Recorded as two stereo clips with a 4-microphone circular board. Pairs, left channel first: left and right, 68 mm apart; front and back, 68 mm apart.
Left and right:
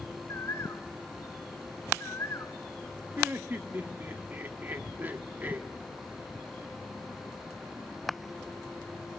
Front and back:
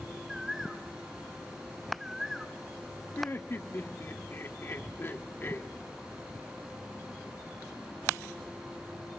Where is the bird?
95° left, 1.5 m.